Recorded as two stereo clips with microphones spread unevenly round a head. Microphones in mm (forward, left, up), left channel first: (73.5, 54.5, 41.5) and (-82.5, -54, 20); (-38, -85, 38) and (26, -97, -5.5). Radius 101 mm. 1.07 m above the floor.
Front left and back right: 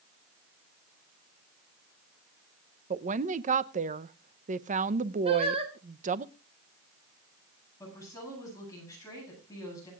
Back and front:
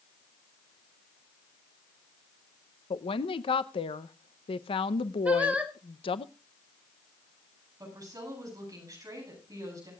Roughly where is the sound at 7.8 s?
Ahead right.